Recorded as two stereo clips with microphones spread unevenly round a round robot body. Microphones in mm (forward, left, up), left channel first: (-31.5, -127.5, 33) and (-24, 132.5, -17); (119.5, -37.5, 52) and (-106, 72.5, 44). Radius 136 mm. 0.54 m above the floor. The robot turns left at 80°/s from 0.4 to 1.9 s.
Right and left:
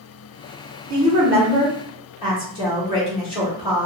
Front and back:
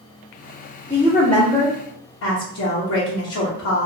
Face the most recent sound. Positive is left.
turn(degrees=-20)